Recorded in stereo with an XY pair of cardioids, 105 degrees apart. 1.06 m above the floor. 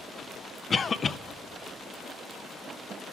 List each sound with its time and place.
0.7 s a cough: 35° left, 0.5 m